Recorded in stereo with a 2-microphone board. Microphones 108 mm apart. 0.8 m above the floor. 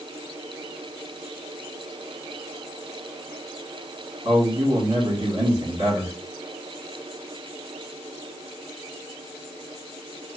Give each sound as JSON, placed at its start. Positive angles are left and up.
{"t": 4.2, "sound": "a man speaking", "side_deg": -55, "distance_m": 2.0}